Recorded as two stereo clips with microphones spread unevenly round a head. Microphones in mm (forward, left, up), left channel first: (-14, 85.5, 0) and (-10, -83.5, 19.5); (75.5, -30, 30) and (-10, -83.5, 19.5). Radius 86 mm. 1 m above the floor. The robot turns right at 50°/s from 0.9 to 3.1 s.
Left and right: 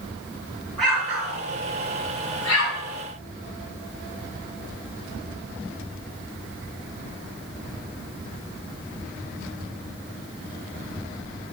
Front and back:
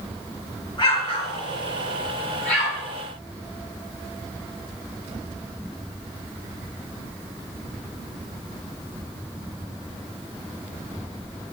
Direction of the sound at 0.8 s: Straight ahead.